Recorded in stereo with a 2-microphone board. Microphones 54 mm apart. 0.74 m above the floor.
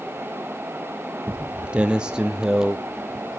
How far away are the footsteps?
About 1.0 m.